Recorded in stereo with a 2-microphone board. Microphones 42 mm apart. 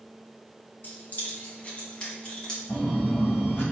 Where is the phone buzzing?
65° left (ahead or behind), 1.7 m.